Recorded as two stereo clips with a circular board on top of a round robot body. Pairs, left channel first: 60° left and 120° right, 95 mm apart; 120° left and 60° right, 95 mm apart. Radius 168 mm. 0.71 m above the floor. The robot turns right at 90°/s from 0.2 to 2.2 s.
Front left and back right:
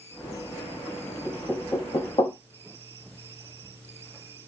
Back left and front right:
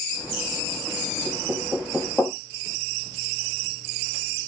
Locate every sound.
1.2 s knocking: 30° right, 0.9 m; by 2.3 s 55° left, 0.9 m